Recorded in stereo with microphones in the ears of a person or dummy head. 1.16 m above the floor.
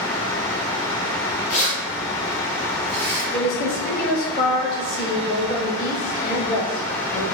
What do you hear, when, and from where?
1.5 s keys jangling: 45° left (ahead or behind), 0.7 m; by 3.2 s 50° left (ahead or behind), 1.6 m
3.3 s a woman speaking: 50° left (ahead or behind), 0.9 m